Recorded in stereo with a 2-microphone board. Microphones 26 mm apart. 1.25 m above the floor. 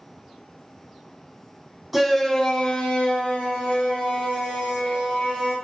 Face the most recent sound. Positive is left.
turn(degrees=85)